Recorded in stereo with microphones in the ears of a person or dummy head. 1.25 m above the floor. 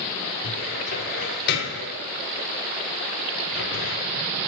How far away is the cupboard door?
About 0.8 m.